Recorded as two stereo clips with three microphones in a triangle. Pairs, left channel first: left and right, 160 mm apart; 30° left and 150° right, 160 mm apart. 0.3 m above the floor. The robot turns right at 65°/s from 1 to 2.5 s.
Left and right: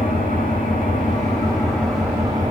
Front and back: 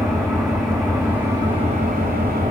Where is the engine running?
115° left, 9.5 m; by 2.5 s 145° right, 9.5 m.